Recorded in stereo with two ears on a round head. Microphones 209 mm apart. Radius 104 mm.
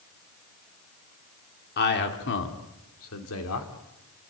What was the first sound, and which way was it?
A man speaking, 45° left (ahead or behind).